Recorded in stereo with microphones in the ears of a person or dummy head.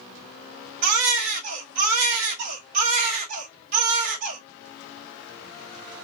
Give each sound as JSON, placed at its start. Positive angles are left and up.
{"t": 0.8, "sound": "a baby crying", "side_deg": -45, "distance_m": 1.6}